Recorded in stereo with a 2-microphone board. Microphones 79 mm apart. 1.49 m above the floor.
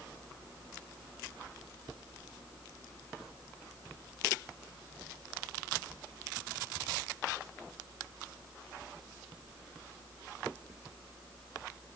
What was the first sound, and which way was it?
Only background noise.